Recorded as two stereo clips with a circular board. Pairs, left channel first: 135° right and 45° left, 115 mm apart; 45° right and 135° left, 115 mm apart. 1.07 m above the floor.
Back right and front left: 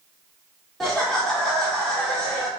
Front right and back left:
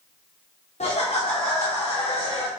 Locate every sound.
0.8 s laughter: 50° right, 0.6 m